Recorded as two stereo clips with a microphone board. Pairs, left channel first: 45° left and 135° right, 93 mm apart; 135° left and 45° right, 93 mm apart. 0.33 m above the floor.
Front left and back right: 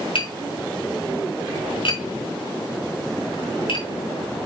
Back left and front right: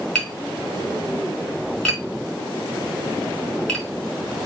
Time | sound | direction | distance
0.1 | tapping | 50° left | 4 m